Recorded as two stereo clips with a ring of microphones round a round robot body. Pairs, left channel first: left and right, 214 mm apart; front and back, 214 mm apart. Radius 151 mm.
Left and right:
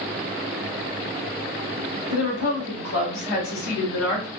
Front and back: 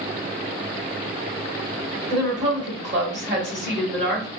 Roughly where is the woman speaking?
Behind left.